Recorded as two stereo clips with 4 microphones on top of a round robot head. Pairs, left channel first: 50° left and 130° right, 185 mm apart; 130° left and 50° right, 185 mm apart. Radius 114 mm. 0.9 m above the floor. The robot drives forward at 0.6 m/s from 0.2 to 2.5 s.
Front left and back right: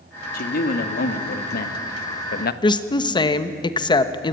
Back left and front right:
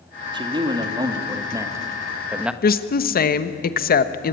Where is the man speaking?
15° left, 2.5 m; by 2.5 s 35° left, 1.2 m.